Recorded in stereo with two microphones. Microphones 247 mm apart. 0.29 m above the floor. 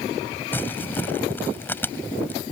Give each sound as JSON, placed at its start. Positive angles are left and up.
{"t": 0.5, "sound": "crumpling", "side_deg": 10}